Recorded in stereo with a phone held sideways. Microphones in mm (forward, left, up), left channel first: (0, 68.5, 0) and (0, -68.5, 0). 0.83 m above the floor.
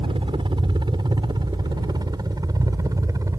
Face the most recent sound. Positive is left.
turn(degrees=-20)  # may be behind; listen again after turning